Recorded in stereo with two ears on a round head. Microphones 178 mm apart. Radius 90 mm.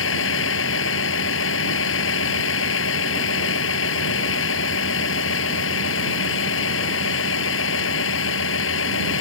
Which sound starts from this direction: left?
A vehicle, at 0.0 s.